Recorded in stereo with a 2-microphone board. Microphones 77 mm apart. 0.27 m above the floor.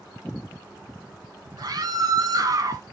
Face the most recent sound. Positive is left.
turn(degrees=-45)  # may be behind; listen again after turning